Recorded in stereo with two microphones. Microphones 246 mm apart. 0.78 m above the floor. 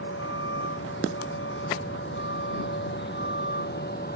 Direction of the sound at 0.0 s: 55° left (ahead or behind).